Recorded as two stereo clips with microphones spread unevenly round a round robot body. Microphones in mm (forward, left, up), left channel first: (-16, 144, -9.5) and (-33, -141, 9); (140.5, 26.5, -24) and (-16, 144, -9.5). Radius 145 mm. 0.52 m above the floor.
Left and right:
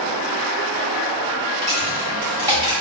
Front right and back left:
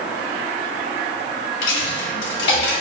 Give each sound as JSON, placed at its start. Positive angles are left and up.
{"t": 1.6, "sound": "a dropped coin", "azimuth_deg": -20, "distance_m": 1.3}